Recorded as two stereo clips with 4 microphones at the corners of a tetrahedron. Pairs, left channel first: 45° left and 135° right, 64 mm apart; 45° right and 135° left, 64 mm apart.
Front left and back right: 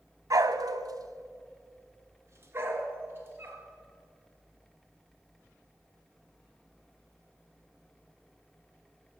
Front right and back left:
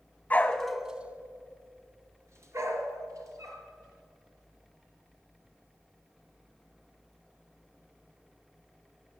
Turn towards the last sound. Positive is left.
turn(degrees=170)